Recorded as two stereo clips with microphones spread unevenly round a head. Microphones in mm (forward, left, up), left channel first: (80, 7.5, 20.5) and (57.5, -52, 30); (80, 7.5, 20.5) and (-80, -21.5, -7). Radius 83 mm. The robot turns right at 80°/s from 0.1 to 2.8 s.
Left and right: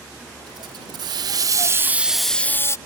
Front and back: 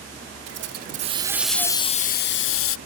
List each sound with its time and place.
0.5 s a hiss: 160° right; by 2.8 s 20° left